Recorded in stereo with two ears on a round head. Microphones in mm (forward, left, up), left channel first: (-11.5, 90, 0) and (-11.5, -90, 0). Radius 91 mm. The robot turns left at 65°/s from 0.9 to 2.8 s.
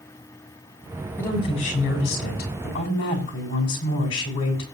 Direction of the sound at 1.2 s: 170° left.